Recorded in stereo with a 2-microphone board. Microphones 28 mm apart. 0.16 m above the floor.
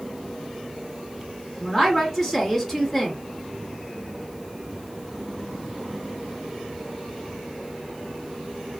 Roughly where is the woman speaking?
Centre.